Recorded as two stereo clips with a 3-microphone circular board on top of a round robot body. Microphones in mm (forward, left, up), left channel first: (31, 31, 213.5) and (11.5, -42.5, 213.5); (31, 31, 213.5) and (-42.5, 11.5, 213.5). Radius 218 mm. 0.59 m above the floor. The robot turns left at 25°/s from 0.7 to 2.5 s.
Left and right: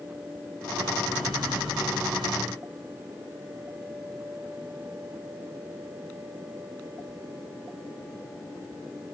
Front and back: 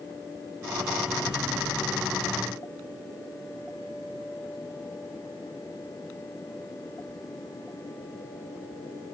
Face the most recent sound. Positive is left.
No sound to turn to.